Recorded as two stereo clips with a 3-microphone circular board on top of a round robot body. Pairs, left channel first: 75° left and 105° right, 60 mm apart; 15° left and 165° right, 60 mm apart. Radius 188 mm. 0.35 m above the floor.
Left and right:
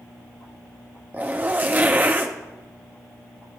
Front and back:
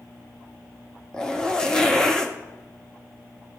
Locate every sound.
1.1 s a zipper: 60° right, 1.4 m